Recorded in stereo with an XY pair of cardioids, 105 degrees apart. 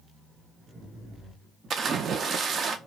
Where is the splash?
50° right, 0.6 m.